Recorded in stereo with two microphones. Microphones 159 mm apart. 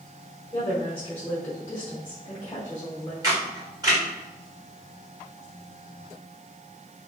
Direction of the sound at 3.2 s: 25° right (ahead or behind).